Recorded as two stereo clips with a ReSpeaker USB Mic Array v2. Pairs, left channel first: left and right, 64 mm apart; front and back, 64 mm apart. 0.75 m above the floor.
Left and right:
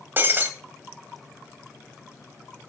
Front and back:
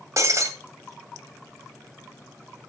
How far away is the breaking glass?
About 1.9 m.